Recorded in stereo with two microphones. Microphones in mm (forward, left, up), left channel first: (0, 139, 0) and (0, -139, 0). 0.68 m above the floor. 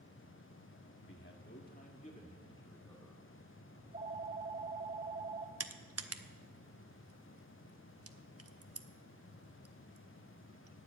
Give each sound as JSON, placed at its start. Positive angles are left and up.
{"t": 1.0, "sound": "a man speaking", "side_deg": 45, "distance_m": 1.7}
{"t": 3.8, "sound": "a phone ringing", "side_deg": -30, "distance_m": 1.6}
{"t": 5.6, "sound": "crushing", "side_deg": -55, "distance_m": 0.8}